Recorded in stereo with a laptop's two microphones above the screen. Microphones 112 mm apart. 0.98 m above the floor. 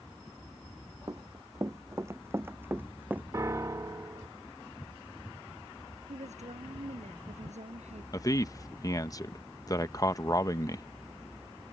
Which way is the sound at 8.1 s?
30° left (ahead or behind).